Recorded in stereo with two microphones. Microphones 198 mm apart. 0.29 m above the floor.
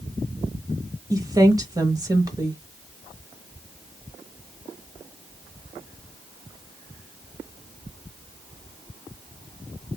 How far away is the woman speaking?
About 1.0 m.